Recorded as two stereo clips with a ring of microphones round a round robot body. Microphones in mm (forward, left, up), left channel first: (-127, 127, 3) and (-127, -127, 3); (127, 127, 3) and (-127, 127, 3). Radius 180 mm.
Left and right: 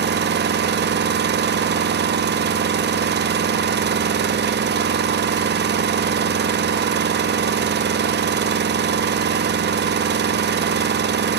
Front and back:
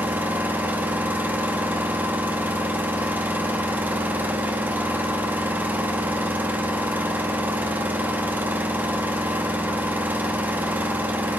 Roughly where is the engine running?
Right.